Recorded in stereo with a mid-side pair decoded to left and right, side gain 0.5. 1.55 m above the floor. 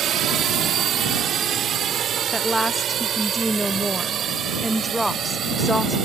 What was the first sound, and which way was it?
A drone, 60° right.